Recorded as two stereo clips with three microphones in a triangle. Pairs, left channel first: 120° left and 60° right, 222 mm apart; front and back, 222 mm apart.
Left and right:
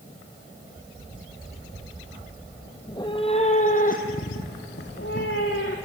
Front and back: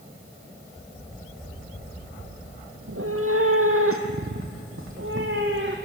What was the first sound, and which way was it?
A cat meowing, 165° right.